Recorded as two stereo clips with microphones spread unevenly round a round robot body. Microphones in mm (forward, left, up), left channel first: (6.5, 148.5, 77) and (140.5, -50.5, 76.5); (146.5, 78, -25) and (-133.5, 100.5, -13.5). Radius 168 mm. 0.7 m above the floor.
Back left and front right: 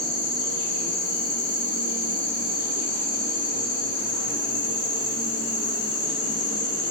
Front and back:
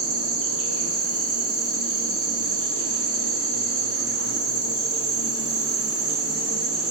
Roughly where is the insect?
Behind left.